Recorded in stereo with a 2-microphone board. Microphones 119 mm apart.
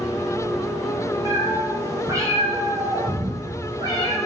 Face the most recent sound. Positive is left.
turn(degrees=-40)  # may be behind; listen again after turning